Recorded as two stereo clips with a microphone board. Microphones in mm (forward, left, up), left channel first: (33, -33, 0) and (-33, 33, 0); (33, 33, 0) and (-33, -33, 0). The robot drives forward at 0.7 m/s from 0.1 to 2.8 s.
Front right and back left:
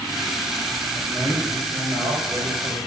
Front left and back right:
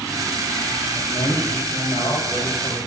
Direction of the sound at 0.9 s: 90° left.